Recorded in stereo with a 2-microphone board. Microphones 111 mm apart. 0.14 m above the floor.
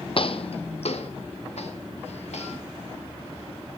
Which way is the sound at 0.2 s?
55° left (ahead or behind).